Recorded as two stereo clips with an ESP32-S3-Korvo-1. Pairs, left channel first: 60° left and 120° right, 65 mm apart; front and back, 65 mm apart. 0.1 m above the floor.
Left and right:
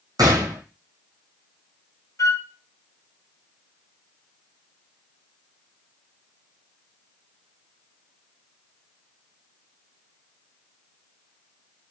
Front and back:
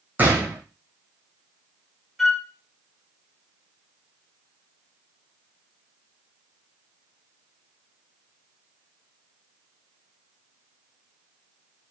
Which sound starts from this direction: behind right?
A gunshot, at 0.2 s.